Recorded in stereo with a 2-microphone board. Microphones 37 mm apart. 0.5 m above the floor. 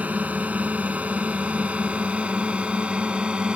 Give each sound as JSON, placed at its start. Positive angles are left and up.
{"t": 0.0, "sound": "a drone", "side_deg": -45}